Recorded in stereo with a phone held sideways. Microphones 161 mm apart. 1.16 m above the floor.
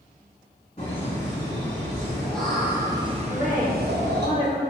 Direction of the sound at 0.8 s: 35° left (ahead or behind).